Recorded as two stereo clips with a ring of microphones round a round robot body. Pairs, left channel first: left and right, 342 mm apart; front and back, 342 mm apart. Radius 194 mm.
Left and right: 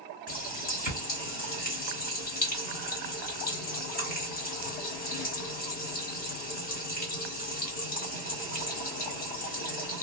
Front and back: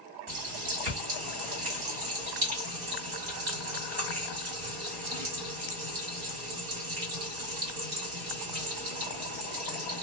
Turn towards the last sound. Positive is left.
turn(degrees=155)